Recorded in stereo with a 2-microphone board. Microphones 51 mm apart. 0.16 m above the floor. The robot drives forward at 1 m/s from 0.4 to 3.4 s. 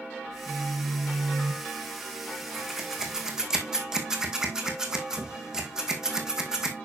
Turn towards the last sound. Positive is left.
turn(degrees=-15)  # may be behind; listen again after turning